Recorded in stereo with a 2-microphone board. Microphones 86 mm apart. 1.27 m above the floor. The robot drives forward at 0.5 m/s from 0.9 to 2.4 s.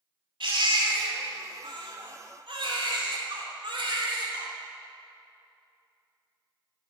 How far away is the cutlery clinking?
I don't hear cutlery clinking.